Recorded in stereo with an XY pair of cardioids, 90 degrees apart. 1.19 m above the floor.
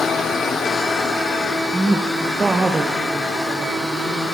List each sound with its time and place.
1.7 s a woman speaking: 15° right, 0.6 m; by 4.2 s 40° right, 2.5 m